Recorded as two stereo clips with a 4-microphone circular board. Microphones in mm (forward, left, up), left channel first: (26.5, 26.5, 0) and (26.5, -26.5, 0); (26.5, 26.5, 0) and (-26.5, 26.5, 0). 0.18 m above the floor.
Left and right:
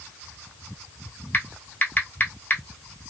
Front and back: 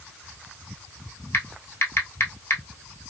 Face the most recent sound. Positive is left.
turn(degrees=35)